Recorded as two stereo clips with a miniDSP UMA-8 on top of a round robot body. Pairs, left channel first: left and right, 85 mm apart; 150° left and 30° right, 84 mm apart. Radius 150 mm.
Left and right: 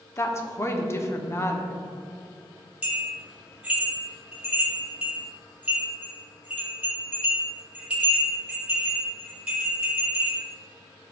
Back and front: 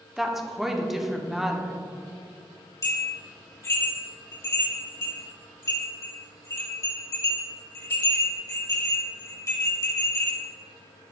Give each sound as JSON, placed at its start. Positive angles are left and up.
{"t": 0.2, "sound": "a woman speaking", "azimuth_deg": 55, "distance_m": 1.1}
{"t": 2.8, "sound": "a bell", "azimuth_deg": -165, "distance_m": 2.5}